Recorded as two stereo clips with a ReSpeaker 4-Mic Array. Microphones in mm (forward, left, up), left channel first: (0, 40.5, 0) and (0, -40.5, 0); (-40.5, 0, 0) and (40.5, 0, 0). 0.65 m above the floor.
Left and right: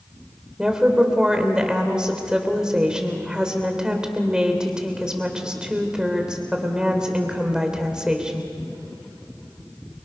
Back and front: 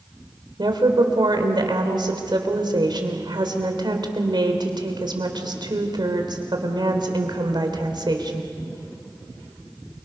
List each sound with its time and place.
0.6 s a woman speaking: 10° right, 3 m